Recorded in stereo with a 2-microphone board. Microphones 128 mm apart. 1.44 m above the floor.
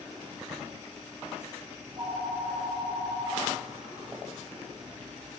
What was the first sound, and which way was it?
A phone ringing, 30° right (ahead or behind).